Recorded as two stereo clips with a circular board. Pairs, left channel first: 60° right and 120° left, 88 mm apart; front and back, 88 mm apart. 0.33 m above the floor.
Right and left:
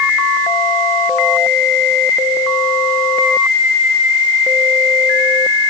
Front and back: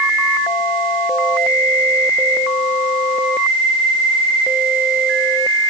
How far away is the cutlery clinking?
I don't hear cutlery clinking.